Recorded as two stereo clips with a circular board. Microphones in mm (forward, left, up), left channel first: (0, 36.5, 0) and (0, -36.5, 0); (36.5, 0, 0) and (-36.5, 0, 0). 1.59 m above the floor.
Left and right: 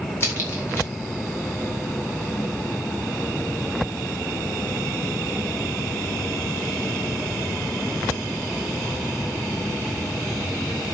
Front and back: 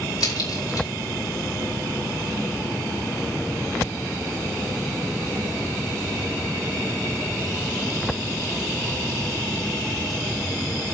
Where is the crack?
35° left, 4.5 m.